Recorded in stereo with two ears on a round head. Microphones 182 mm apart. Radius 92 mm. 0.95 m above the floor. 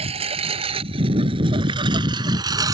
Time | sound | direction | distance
0.0 | a lawn mower | 30° right (ahead or behind) | ?